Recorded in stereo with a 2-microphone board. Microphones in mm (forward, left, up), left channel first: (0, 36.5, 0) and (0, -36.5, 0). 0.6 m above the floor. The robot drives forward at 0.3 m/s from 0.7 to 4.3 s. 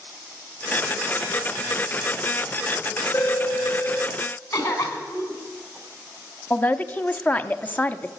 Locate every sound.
3.1 s a phone ringing: 40° left (ahead or behind), 1.1 m; by 4.2 s 30° left (ahead or behind), 1.3 m
4.5 s a cough: 30° left (ahead or behind), 5.5 m
6.5 s a man speaking: 25° left (ahead or behind), 0.7 m